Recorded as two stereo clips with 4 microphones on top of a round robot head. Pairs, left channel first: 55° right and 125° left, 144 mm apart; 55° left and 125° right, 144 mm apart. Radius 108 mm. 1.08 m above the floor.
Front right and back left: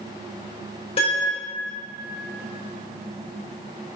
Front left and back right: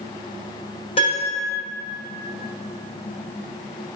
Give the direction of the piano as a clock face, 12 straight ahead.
12 o'clock.